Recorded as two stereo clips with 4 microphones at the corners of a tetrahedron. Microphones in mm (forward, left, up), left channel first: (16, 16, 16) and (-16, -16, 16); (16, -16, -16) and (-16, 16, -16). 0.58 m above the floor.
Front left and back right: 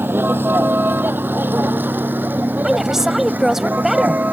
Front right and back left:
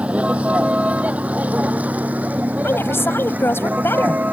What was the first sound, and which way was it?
A vehicle, 165° right.